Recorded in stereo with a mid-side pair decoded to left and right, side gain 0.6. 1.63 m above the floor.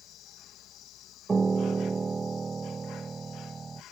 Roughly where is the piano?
Ahead.